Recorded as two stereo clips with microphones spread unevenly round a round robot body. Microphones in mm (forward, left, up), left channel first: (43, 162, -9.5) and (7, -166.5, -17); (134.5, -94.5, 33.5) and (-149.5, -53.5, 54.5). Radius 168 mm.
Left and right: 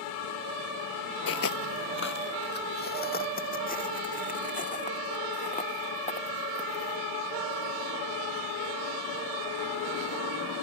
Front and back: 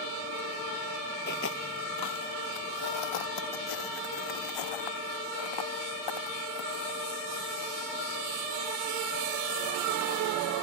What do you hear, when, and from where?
1.3 s footsteps: 50° left; by 10.2 s 10° left